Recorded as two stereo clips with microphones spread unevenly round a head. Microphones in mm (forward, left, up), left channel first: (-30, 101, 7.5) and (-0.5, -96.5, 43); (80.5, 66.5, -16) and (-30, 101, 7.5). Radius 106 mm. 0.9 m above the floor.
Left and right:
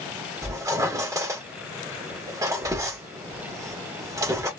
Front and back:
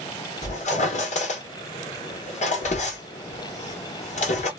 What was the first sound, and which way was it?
A squeak, 5° right.